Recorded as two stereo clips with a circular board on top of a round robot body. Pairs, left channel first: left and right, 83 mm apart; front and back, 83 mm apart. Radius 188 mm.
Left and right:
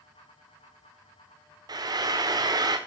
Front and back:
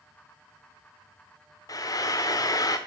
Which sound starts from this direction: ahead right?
Frying, at 1.7 s.